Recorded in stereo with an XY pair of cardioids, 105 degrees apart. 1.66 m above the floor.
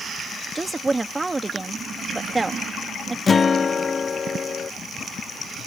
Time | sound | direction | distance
0.6 | a woman speaking | 20° right | ?
3.3 | a guitar | 35° left | ?